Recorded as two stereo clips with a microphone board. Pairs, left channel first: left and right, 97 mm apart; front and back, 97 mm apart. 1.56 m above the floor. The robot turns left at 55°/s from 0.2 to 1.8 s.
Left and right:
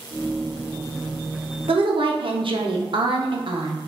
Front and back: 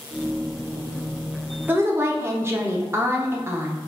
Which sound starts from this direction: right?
A woman speaking, at 1.7 s.